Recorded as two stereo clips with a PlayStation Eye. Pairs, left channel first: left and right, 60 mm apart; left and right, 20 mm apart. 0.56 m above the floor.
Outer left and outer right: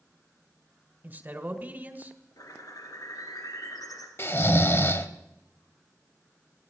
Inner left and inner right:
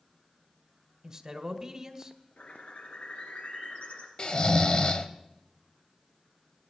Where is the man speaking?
30° right (ahead or behind), 1.7 m.